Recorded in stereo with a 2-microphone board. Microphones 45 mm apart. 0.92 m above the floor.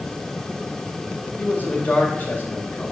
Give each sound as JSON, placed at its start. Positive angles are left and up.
{"t": 1.4, "sound": "a man speaking", "side_deg": 50, "distance_m": 2.0}